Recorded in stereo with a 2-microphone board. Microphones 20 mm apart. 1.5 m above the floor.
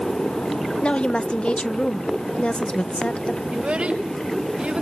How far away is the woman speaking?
About 0.8 m.